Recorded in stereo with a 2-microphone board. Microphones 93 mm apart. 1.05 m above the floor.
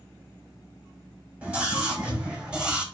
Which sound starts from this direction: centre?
A scream, at 1.4 s.